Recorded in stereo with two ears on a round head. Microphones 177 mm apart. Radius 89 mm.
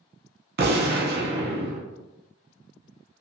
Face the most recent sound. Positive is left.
turn(degrees=-50)  # may be behind; listen again after turning